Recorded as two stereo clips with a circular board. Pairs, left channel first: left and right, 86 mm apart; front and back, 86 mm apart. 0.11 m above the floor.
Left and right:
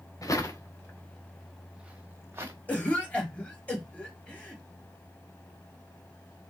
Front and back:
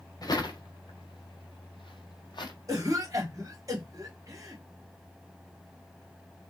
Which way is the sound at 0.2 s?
40° left.